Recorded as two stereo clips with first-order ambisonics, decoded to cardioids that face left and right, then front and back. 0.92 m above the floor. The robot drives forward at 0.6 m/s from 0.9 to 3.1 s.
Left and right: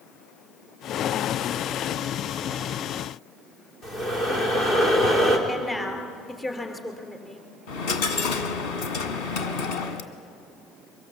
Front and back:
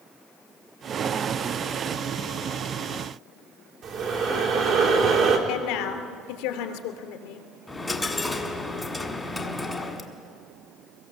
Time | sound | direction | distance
3.8 | breathing | 135° left | 3 m
5.5 | a woman speaking | 10° left | 2.5 m
7.7 | a dropped coin | 85° left | 1.5 m